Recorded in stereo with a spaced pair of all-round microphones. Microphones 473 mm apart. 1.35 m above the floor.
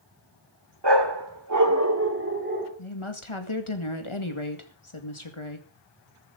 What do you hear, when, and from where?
0.8 s a dog barking: 60° right (ahead or behind), 1.6 m; by 2.7 s 20° right (ahead or behind), 3 m
2.8 s a woman speaking: 85° left, 2 m